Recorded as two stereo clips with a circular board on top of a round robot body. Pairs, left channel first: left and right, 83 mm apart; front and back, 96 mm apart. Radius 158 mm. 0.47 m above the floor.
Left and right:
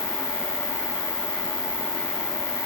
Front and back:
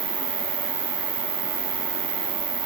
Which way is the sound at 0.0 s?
170° left.